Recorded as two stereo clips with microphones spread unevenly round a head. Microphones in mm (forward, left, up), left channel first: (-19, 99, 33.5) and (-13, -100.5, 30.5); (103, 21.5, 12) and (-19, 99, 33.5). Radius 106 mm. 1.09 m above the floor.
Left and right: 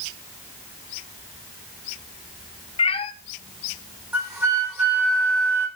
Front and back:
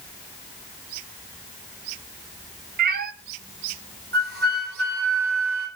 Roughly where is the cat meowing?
Behind left.